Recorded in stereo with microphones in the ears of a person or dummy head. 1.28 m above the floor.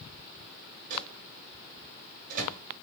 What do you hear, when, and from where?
0.9 s a microwave: 45° right (ahead or behind), 1.0 m